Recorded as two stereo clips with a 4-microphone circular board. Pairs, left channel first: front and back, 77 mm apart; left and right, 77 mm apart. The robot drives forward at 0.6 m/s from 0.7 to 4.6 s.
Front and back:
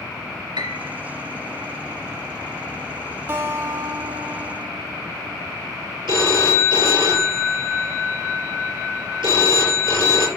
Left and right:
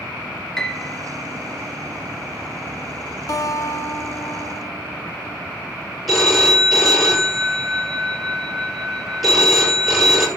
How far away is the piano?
About 1.6 m.